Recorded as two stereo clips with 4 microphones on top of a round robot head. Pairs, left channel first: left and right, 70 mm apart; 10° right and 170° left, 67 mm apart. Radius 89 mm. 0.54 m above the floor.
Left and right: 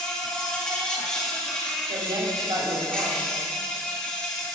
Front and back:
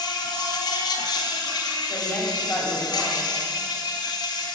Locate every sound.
0.0 s an insect: 10° left, 1.1 m
1.9 s a woman speaking: 75° right, 1.9 m